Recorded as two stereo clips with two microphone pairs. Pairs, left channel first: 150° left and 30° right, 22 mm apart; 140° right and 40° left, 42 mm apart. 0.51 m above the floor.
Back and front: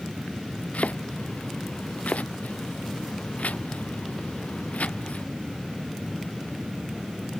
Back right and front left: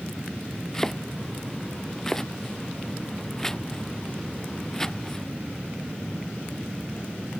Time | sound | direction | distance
0.7 | chopping | 145° left | ?